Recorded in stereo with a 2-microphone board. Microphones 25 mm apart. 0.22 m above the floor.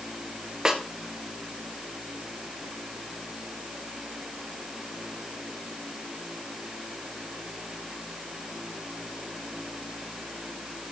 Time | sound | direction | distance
0.7 | a snare drum | 20° right (ahead or behind) | 1.6 m